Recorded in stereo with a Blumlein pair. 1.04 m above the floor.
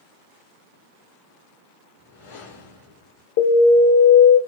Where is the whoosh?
55° left, 1.8 m.